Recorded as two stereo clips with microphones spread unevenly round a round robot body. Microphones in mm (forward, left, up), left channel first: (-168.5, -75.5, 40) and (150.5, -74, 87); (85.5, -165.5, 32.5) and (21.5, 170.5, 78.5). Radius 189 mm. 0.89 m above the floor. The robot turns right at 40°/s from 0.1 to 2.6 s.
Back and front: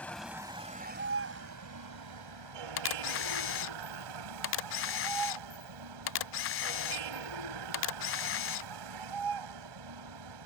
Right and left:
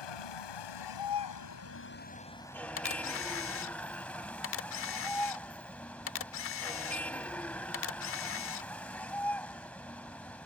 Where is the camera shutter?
135° right.